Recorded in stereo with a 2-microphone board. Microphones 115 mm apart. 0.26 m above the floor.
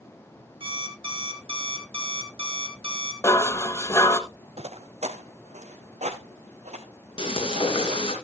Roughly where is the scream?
No scream in this recording.